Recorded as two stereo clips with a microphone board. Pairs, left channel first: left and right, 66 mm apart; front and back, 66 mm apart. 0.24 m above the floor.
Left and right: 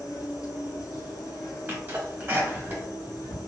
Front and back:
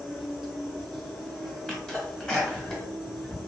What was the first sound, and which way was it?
An insect, 90° left.